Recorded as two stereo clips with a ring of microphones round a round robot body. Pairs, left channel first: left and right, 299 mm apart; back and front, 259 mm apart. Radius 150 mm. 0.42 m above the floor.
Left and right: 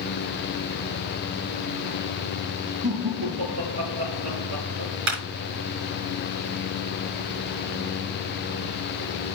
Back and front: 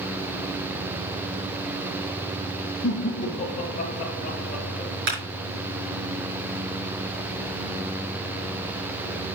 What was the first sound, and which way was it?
Laughter, 115° right.